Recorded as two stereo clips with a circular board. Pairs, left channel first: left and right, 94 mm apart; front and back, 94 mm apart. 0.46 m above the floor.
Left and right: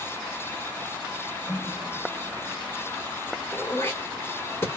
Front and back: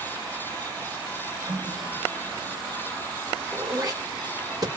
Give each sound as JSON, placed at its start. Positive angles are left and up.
{"t": 1.5, "sound": "a running tap", "azimuth_deg": 175, "distance_m": 1.2}
{"t": 3.5, "sound": "throat clearing", "azimuth_deg": 150, "distance_m": 1.8}